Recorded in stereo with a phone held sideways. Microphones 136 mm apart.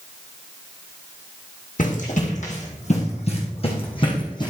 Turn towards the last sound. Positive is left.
turn(degrees=30)  # may be behind; listen again after turning